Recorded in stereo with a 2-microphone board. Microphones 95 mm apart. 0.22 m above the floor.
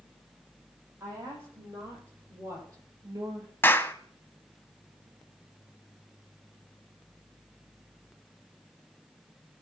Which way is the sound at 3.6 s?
25° left (ahead or behind).